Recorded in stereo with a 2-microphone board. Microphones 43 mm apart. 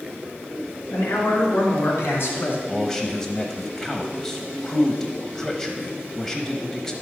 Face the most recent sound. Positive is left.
turn(degrees=10)  # may be behind; listen again after turning